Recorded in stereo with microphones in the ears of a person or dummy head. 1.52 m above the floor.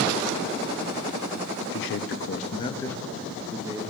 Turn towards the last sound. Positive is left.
turn(degrees=-20)  # may be behind; listen again after turning